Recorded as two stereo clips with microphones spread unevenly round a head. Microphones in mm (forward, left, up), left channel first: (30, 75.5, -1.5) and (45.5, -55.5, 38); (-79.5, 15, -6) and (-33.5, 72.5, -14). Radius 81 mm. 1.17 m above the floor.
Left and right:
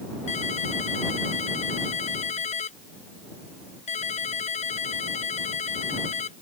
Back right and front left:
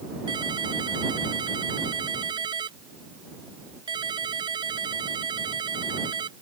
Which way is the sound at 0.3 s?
60° left.